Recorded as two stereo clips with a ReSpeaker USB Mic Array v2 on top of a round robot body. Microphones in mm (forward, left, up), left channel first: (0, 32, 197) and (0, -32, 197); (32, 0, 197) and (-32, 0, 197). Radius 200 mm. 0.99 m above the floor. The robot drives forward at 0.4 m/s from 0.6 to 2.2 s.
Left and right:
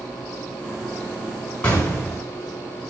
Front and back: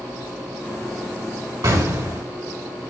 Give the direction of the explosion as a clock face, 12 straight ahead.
7 o'clock.